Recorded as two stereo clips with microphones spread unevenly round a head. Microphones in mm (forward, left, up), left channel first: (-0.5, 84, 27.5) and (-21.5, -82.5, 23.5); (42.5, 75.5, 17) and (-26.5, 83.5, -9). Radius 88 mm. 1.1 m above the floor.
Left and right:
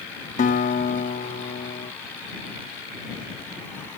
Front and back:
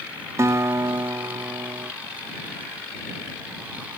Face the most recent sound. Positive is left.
turn(degrees=120)